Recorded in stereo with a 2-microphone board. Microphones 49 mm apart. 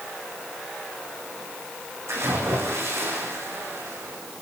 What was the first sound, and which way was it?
A splash, 75° right (ahead or behind).